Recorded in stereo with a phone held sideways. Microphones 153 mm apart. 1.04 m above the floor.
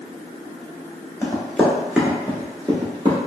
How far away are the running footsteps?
About 1.0 m.